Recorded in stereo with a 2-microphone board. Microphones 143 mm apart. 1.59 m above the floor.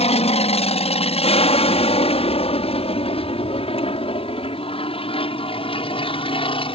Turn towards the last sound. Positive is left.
turn(degrees=40)  # may be behind; listen again after turning